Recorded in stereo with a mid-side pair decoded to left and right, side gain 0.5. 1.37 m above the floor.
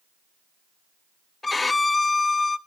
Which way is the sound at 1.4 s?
20° left.